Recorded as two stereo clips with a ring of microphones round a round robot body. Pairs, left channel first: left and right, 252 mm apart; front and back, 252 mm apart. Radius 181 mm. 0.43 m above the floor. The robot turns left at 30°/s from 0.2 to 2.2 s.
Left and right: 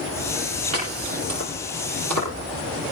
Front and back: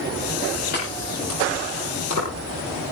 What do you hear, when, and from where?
0.7 s chopping: 70° right, 8.5 m; by 2.9 s 110° right, 8.5 m